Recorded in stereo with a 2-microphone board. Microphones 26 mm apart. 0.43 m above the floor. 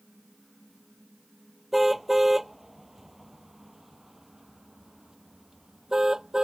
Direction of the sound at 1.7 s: 5° right (ahead or behind).